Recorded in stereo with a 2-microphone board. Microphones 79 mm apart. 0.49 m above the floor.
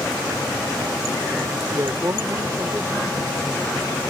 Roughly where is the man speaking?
Right.